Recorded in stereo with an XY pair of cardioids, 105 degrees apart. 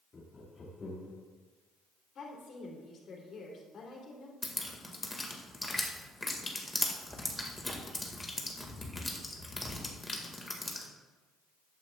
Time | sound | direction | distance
0.1 | laughter | 35° left | 1.9 m
2.1 | a woman speaking | 55° left | 3 m
4.4 | dripping | 20° left | 1.8 m